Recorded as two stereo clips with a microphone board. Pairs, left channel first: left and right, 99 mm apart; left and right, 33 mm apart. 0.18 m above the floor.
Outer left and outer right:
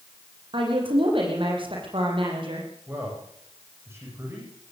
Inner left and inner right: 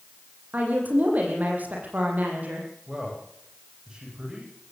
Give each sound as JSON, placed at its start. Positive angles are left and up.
{"t": 0.5, "sound": "a woman speaking", "side_deg": -60, "distance_m": 8.0}
{"t": 2.9, "sound": "a man speaking", "side_deg": -25, "distance_m": 10.0}